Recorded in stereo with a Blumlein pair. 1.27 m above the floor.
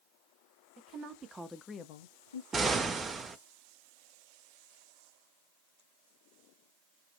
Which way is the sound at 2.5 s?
15° right.